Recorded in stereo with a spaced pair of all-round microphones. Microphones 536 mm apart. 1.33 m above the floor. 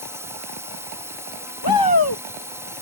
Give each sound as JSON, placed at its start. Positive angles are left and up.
{"t": 0.0, "sound": "a drone", "side_deg": -5}
{"t": 1.6, "sound": "a shout", "side_deg": 40}